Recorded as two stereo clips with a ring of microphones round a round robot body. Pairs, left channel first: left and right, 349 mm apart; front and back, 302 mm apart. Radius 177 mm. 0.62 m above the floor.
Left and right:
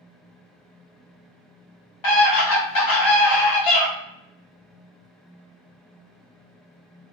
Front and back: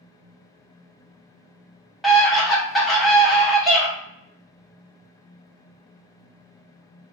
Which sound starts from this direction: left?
A scream, at 2.0 s.